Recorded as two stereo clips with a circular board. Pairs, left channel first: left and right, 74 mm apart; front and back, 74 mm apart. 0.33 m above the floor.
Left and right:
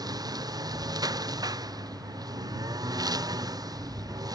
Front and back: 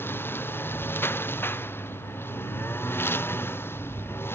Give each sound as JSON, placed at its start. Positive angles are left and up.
{"t": 0.0, "sound": "a lawn mower", "azimuth_deg": -60}